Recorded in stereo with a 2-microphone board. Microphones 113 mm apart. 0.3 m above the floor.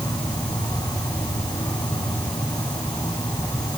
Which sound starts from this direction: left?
An insect, at 0.0 s.